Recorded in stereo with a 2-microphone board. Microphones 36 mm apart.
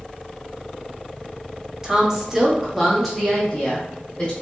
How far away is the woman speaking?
About 0.8 m.